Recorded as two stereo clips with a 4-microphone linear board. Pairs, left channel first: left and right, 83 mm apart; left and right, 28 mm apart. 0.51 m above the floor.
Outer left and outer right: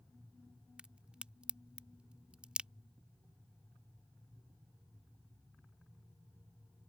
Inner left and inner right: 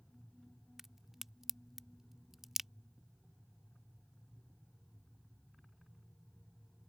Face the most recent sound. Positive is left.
turn(degrees=-15)  # may be behind; listen again after turning